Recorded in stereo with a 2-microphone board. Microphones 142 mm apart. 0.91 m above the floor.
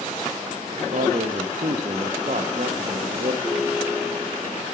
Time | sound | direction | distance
0.9 | a man speaking | 65° right (ahead or behind) | 0.8 m
3.4 | a ringtone | 20° right (ahead or behind) | 6 m